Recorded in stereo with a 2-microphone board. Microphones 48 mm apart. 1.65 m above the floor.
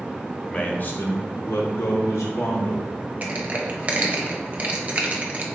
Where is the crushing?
30° right (ahead or behind), 0.7 m.